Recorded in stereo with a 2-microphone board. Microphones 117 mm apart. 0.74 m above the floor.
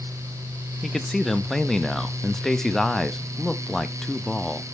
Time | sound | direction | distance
0.8 | a man speaking | 5° left (ahead or behind) | 0.5 m